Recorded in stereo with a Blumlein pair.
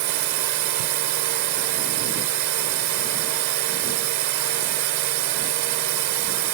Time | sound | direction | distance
0.0 | a drone | 45° right | ?